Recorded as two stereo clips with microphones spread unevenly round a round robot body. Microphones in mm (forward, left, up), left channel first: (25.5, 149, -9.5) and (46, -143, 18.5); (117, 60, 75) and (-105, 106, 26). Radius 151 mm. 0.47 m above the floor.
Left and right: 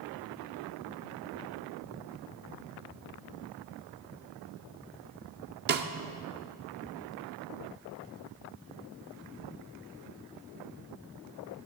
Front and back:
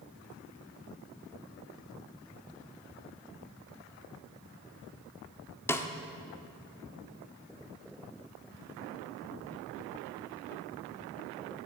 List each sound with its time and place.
5.7 s a snare drum: 105° right, 0.6 m